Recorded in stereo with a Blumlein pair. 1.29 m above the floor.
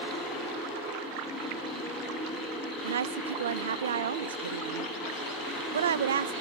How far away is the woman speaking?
About 0.6 m.